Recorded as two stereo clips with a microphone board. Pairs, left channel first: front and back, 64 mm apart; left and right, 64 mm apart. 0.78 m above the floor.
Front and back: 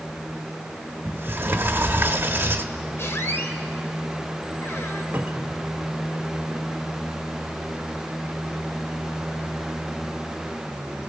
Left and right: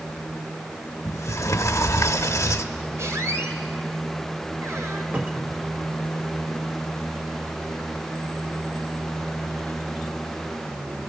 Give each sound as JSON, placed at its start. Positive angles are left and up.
{"t": 1.1, "sound": "a sliding door", "azimuth_deg": 125, "distance_m": 1.0}
{"t": 3.0, "sound": "a squeak", "azimuth_deg": -50, "distance_m": 1.9}
{"t": 5.1, "sound": "a cupboard door", "azimuth_deg": -130, "distance_m": 1.2}